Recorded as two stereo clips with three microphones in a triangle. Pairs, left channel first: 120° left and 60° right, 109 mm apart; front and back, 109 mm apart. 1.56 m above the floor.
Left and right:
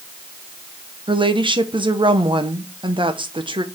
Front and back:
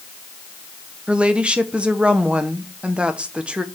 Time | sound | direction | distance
1.1 | a woman speaking | 100° right | 1.0 m